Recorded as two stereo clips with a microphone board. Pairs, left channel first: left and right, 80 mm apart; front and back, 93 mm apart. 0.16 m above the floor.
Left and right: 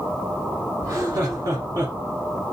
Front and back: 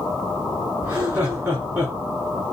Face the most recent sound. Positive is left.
turn(degrees=-115)